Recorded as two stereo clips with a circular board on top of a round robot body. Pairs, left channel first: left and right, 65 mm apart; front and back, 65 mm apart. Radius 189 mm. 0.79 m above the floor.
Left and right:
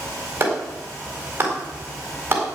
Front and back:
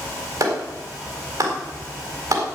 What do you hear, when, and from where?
0.4 s a clap: 150° right, 4 m